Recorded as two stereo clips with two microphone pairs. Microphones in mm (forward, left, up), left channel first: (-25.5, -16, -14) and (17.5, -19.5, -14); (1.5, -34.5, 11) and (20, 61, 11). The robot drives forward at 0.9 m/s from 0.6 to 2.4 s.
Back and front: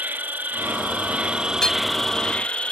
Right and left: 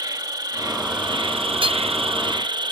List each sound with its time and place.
0.0 s an insect: 35° left; by 2.7 s 115° left
1.6 s hammering: 105° left